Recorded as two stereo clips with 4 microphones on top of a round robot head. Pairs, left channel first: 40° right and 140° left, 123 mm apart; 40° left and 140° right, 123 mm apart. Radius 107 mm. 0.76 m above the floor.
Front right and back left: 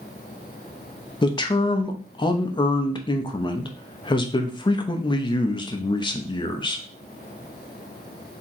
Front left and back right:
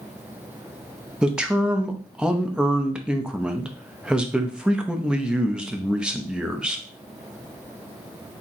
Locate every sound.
1.2 s a man speaking: 60° right, 0.8 m